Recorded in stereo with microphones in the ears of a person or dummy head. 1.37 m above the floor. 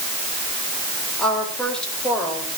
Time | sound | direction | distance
1.2 | a woman speaking | 5° left (ahead or behind) | 4.5 m